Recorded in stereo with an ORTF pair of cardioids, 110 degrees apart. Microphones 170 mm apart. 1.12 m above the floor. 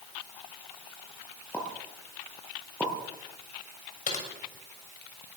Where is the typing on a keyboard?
50° left, 7 m.